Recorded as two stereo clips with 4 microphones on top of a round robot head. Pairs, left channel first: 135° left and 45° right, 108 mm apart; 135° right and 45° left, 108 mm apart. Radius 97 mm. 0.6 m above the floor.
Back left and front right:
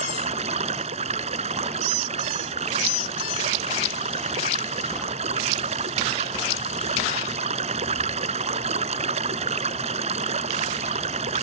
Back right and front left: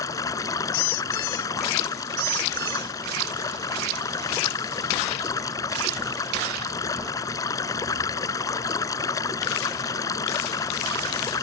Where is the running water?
70° right.